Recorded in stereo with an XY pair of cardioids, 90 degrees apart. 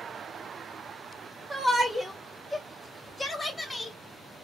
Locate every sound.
1.5 s a shout: 15° right, 0.7 m; by 4.0 s 30° left, 1.6 m